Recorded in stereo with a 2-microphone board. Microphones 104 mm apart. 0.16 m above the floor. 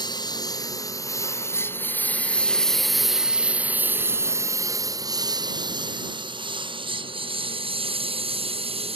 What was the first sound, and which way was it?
A lawn mower, 40° left (ahead or behind).